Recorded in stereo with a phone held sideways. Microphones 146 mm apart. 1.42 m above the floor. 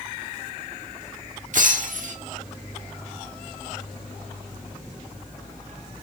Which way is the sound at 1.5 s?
60° right (ahead or behind).